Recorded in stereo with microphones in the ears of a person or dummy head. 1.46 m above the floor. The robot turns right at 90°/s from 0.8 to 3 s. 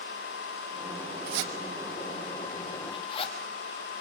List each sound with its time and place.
1.3 s a zipper: 50° right (ahead or behind), 1.6 m; by 3.4 s 30° left (ahead or behind), 1.6 m